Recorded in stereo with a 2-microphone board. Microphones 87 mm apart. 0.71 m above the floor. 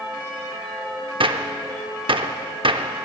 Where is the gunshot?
80° right, 0.6 m.